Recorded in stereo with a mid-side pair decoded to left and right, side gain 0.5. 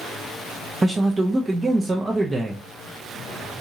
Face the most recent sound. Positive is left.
turn(degrees=-25)